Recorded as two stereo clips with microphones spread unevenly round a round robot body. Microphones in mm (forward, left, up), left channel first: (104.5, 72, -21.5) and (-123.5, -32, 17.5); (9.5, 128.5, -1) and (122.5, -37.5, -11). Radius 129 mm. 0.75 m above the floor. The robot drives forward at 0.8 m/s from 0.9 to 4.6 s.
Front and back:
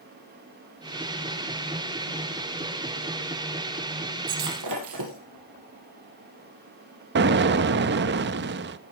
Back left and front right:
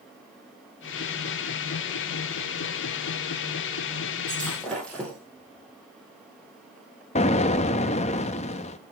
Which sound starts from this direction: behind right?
Breaking glass, at 4.3 s.